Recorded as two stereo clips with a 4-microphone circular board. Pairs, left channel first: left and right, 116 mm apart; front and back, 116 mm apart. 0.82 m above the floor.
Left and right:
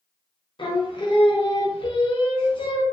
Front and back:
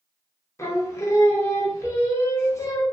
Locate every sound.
0.6 s singing: 60° left, 0.5 m